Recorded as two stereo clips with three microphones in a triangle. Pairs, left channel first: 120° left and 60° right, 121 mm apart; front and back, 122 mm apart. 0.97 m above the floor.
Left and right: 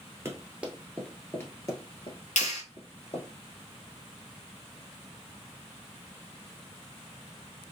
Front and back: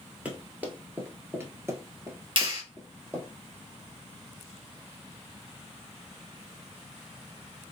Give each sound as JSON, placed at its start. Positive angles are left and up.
{"t": 0.2, "sound": "running footsteps", "azimuth_deg": -105, "distance_m": 1.1}
{"t": 2.4, "sound": "a clap", "azimuth_deg": 130, "distance_m": 1.6}